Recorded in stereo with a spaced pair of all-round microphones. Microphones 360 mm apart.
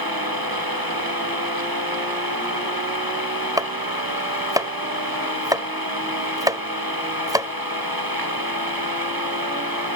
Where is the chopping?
10° right (ahead or behind).